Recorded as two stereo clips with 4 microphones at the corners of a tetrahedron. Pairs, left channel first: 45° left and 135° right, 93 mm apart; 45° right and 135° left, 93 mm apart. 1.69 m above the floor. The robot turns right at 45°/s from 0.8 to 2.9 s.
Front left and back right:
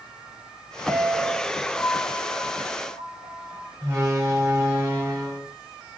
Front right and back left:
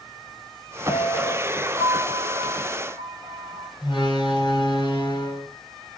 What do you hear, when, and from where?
0.9 s a piano: 65° right, 2.5 m; by 3.7 s 25° left, 2.5 m
3.8 s a door slam: 70° right, 5 m